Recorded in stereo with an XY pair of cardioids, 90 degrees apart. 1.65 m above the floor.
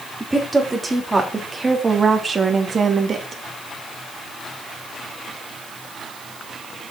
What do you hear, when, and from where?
0.2 s a woman speaking: 10° right, 3.5 m; by 3.4 s 50° right, 2.5 m